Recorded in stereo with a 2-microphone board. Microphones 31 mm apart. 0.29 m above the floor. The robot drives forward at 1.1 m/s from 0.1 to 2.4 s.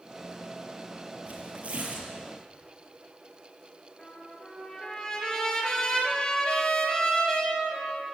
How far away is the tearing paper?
About 6 m.